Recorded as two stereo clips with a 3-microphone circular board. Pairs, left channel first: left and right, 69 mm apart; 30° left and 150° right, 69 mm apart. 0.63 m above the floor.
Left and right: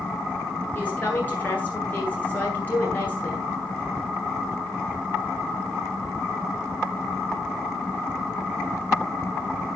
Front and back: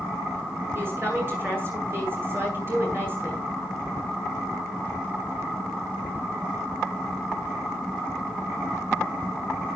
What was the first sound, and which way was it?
A woman speaking, 155° left.